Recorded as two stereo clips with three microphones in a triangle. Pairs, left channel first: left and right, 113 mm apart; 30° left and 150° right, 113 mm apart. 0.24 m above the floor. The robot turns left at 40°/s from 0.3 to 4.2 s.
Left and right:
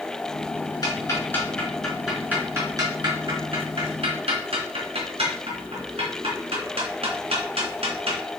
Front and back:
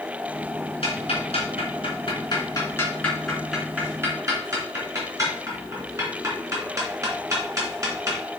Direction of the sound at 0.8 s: 45° left.